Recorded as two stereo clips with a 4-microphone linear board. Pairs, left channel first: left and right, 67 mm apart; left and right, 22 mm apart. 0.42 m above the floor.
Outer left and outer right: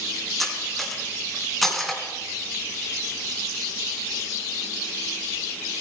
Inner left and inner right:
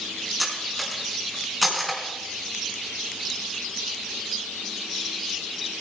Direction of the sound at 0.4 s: Centre (ahead or behind).